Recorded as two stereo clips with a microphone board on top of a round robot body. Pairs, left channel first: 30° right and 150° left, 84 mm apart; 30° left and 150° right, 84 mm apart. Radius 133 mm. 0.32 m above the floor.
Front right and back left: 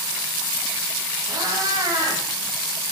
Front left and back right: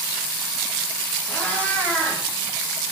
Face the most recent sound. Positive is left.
turn(degrees=105)